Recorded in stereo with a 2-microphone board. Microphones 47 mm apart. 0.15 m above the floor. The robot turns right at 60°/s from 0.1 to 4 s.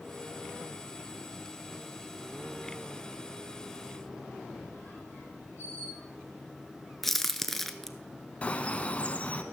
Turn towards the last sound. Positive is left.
turn(degrees=30)  # may be behind; listen again after turning